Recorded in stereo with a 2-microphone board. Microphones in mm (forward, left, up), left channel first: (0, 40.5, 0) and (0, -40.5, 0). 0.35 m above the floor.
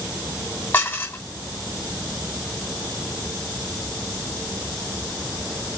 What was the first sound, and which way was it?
Dishes clattering, 30° left (ahead or behind).